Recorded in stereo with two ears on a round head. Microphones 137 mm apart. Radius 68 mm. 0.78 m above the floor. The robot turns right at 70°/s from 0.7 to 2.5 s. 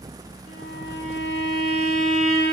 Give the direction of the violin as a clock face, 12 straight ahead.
10 o'clock.